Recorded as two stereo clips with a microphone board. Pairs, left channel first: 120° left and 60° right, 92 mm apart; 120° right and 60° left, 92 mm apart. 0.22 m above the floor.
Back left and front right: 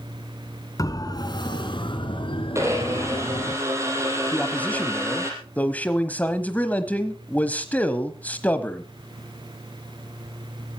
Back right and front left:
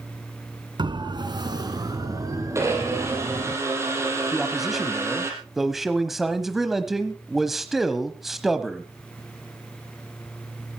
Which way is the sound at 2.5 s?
Straight ahead.